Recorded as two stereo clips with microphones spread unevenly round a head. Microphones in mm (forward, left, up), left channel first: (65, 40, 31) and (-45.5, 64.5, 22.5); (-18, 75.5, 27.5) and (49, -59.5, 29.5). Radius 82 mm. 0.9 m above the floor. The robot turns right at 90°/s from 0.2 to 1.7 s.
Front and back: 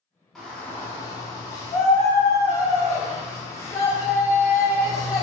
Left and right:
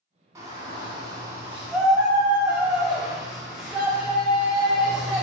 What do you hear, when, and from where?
0.3 s a shout: 105° right, 0.7 m; by 5.2 s 20° left, 0.7 m